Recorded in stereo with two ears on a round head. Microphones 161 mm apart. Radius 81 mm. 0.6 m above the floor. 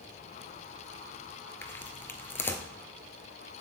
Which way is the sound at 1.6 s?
15° left (ahead or behind).